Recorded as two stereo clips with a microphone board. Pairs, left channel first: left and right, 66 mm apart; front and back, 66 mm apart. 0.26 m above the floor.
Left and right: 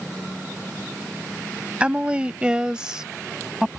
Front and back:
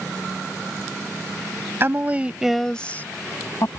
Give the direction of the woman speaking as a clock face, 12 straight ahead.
5 o'clock.